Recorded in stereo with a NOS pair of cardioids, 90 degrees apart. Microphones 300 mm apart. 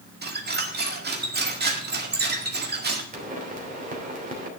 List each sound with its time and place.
0.2 s a squeak: 35° right, 2.0 m
3.1 s a pop: 25° right, 3 m